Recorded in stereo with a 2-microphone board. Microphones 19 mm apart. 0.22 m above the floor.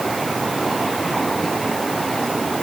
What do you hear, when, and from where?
Only background noise.